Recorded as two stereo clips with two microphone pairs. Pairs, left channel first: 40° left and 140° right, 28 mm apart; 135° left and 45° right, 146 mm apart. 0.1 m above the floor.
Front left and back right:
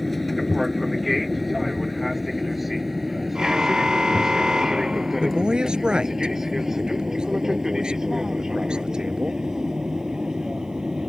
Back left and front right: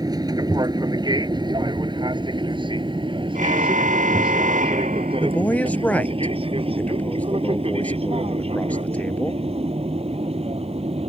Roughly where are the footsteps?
No footsteps in this recording.